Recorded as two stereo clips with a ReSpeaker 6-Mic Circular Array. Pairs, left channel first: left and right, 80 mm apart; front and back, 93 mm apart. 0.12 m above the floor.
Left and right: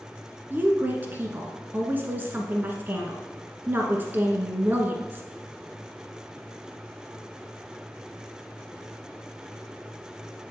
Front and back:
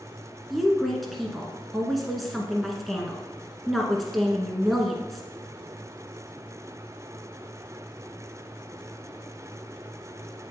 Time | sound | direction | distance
0.5 | a woman speaking | 90° right | 1.1 m